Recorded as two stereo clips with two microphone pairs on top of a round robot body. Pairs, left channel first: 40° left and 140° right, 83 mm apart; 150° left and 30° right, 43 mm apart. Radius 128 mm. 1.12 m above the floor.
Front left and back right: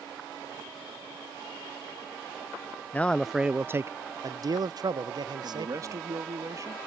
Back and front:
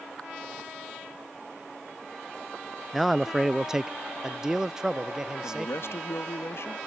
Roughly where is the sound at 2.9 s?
Ahead left.